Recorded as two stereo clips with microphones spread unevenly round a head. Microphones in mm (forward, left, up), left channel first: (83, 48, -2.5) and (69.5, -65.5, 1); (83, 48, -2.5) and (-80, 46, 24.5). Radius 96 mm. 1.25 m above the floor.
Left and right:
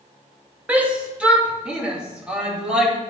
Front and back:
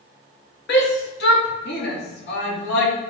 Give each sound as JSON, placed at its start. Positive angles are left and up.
{"t": 0.7, "sound": "a shout", "azimuth_deg": -20, "distance_m": 2.5}